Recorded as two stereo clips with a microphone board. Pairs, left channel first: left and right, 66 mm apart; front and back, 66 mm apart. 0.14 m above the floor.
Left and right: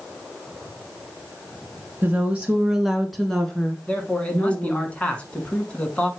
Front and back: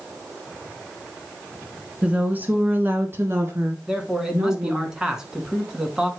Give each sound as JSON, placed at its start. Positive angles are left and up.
{"t": 2.0, "sound": "a woman speaking", "azimuth_deg": -125, "distance_m": 1.6}
{"t": 3.9, "sound": "a man speaking", "azimuth_deg": 120, "distance_m": 1.2}